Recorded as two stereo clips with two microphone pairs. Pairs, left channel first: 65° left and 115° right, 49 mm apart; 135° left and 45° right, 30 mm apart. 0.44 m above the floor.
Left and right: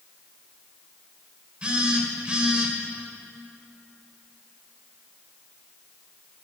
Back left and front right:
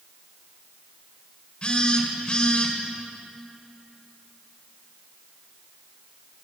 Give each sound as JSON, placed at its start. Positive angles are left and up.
{"t": 1.6, "sound": "a phone buzzing", "azimuth_deg": 175, "distance_m": 1.7}